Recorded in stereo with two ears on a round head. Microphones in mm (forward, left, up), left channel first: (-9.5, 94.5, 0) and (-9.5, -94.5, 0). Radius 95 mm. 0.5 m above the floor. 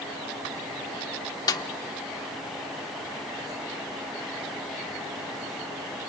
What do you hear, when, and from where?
1.5 s a snare drum: 15° left (ahead or behind), 0.9 m